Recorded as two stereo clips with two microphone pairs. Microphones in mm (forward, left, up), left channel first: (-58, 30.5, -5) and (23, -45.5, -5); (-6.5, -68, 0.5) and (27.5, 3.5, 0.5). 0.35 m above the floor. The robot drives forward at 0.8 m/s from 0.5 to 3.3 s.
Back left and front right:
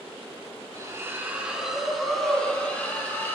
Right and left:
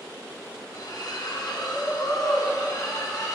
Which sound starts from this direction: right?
A splash, at 0.7 s.